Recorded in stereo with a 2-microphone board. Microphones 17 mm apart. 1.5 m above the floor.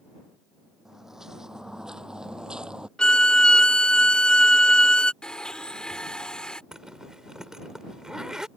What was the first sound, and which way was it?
Footsteps, 30° right (ahead or behind).